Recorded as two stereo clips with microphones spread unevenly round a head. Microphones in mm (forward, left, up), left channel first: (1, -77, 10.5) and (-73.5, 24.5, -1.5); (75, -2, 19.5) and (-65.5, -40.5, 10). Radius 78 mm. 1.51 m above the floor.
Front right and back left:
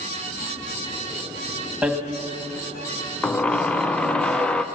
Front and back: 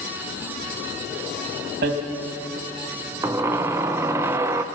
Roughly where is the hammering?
Behind right.